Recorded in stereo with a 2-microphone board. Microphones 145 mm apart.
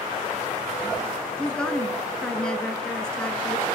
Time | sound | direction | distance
1.4 | a woman speaking | 5° left (ahead or behind) | 1.1 m